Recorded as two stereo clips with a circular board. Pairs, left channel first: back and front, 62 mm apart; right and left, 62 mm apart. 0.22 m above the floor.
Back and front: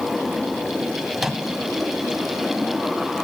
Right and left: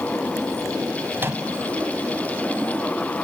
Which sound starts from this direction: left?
A microwave, at 1.2 s.